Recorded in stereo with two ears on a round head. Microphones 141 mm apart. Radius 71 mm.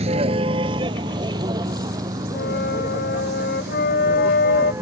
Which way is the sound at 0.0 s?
40° right (ahead or behind).